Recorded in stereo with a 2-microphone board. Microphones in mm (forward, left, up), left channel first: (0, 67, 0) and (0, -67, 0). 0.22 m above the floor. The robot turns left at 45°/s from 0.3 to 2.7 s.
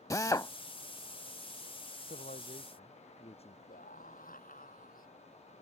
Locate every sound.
0.1 s a drill: 25° left (ahead or behind)
2.1 s a man speaking: 70° left (ahead or behind); by 3.6 s 45° left (ahead or behind)
3.7 s a scream: 80° left